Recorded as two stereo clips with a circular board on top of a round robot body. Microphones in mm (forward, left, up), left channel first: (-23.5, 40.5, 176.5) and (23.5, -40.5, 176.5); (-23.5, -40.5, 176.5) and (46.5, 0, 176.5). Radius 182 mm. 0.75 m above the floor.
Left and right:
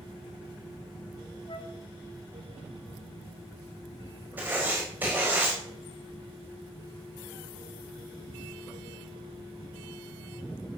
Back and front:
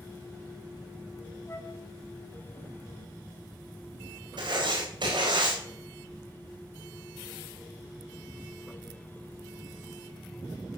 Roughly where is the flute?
Behind left.